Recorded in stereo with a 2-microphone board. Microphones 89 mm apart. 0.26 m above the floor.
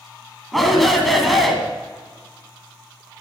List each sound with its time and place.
0.5 s a shout: centre (ahead or behind), 1.8 m